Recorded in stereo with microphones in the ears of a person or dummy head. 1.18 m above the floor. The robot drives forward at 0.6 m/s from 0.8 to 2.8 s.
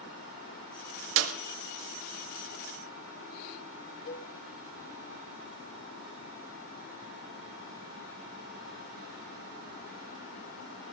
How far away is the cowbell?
About 1.4 m.